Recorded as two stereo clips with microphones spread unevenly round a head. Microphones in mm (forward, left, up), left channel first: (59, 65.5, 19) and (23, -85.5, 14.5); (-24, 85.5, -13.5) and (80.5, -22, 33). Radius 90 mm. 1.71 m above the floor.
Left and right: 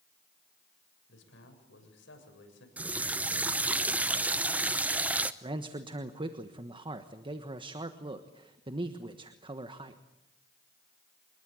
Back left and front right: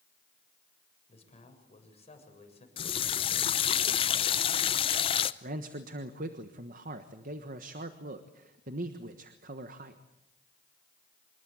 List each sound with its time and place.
1.1 s a man speaking: 85° left, 7.5 m
2.8 s a running tap: 175° right, 0.7 m
5.4 s a man speaking: 45° right, 1.3 m